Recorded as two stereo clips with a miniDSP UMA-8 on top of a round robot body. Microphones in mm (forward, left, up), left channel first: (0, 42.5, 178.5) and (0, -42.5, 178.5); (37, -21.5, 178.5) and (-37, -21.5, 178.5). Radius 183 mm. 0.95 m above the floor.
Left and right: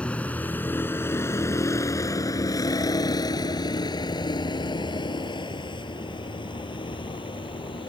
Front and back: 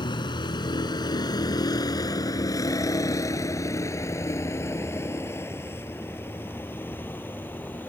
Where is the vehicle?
15° left; by 7.9 s 65° left.